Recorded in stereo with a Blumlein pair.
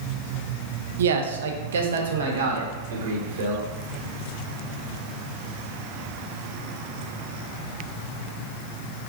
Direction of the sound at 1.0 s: 65° right.